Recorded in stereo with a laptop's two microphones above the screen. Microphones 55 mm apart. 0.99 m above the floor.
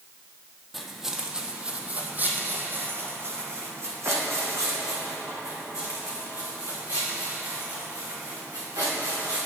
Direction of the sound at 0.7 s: Centre (ahead or behind).